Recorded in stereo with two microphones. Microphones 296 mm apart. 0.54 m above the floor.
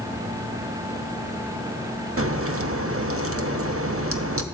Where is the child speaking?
I don't hear a child speaking.